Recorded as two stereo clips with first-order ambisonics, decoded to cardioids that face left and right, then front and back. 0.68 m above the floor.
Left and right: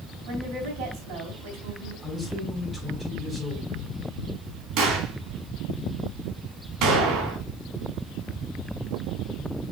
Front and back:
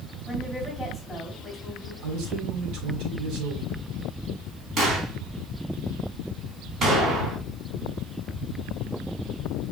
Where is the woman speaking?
85° right, 4 m.